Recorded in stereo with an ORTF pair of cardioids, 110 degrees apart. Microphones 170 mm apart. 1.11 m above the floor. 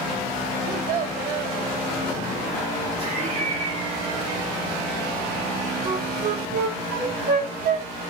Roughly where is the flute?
Right.